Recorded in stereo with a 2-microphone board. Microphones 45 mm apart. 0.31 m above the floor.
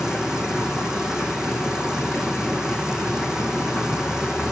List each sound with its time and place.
0.0 s running water: 15° right (ahead or behind), 1.8 m